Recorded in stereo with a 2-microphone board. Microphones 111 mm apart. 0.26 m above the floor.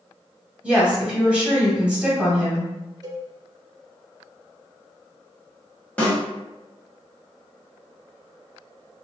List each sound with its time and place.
0.6 s a woman speaking: 10° right (ahead or behind), 1.3 m
3.0 s a cowbell: 35° right (ahead or behind), 0.6 m
6.0 s a snare drum: 10° left (ahead or behind), 1.2 m